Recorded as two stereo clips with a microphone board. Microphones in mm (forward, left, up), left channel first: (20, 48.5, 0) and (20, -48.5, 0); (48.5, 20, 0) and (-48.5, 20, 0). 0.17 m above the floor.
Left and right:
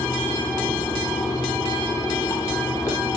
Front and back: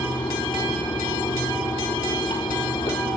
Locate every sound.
0.0 s running water: 35° left, 4 m